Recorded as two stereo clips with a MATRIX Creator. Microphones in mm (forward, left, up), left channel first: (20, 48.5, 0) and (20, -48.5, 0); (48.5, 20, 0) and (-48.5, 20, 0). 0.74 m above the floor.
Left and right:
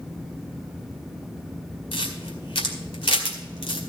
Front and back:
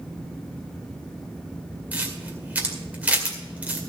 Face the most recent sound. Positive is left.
turn(degrees=105)